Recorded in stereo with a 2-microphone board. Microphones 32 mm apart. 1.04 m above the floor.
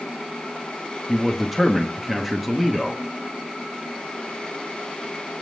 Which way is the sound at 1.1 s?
Centre (ahead or behind).